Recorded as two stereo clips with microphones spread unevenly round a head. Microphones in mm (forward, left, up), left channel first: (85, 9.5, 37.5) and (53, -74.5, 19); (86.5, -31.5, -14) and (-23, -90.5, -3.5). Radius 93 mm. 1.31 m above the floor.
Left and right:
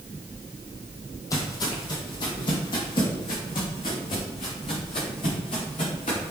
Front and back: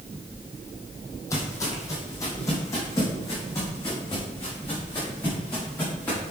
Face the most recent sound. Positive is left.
turn(degrees=105)